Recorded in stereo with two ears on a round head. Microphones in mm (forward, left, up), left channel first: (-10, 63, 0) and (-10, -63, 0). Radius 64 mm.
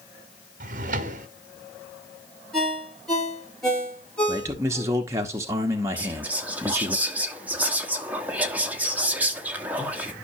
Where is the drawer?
55° right (ahead or behind), 1.0 m.